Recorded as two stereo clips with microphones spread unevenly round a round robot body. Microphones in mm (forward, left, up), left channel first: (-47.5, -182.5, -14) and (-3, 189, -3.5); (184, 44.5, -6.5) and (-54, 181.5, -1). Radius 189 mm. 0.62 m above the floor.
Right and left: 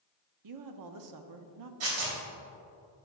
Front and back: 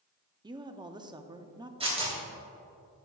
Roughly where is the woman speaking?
Left.